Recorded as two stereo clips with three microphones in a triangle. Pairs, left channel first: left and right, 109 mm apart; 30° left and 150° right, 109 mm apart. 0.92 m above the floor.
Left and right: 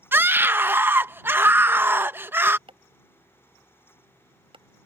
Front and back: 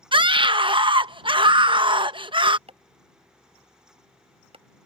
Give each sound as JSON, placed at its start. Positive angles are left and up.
{"t": 0.1, "sound": "a scream", "azimuth_deg": -155}
{"t": 2.7, "sound": "chopping", "azimuth_deg": -125}